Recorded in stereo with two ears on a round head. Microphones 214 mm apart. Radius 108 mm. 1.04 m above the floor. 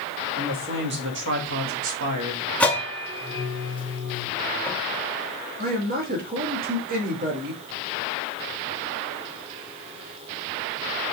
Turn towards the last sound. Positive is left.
turn(degrees=-40)  # may be behind; listen again after turning